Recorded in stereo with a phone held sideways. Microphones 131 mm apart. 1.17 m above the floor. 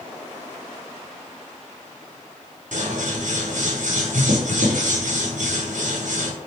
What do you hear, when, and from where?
2.7 s scissors: 70° right (ahead or behind), 0.8 m